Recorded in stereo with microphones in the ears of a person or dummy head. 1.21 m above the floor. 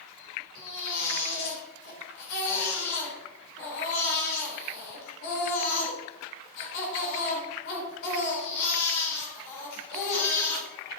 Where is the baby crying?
65° left (ahead or behind), 4 m.